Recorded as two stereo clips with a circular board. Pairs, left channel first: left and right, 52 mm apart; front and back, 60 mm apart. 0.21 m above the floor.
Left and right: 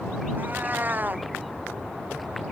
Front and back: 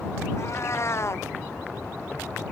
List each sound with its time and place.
0.4 s a cat meowing: 35° right